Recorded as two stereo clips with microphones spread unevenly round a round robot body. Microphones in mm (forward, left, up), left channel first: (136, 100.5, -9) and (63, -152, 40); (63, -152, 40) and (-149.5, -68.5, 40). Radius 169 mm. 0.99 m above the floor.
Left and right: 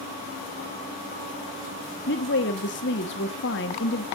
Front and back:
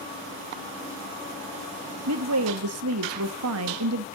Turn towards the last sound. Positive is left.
turn(degrees=130)